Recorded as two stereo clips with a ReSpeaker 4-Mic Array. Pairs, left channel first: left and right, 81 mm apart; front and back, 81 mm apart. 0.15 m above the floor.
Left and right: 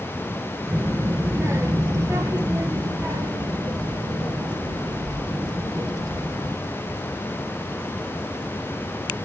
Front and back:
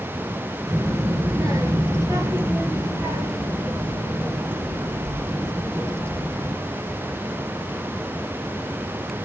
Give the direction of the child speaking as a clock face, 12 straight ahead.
5 o'clock.